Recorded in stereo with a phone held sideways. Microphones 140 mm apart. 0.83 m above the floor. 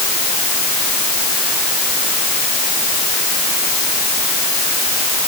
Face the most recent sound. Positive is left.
No sound to turn to.